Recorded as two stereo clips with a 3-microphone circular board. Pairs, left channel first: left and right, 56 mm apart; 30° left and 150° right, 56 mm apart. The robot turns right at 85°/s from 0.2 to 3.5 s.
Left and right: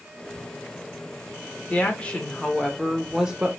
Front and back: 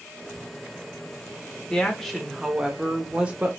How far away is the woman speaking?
About 0.9 m.